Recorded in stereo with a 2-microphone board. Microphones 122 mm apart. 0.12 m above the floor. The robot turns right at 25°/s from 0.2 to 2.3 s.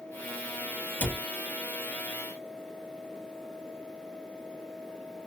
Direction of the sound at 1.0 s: 15° left (ahead or behind).